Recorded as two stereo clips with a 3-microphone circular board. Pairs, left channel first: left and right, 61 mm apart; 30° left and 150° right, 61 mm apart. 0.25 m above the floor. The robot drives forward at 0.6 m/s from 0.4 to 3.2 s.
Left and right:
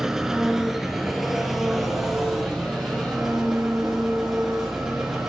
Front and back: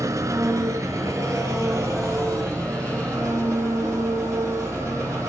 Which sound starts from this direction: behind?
An engine running, at 0.0 s.